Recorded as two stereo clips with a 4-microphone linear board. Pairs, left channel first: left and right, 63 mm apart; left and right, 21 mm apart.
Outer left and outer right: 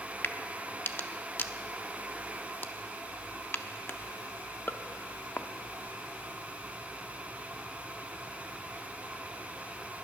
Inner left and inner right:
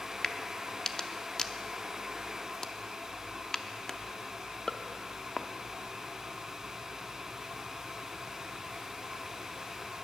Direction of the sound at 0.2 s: 35° left (ahead or behind).